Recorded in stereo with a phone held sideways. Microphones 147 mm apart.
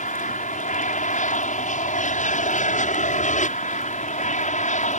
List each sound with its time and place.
0.0 s an aircraft: 60° left (ahead or behind)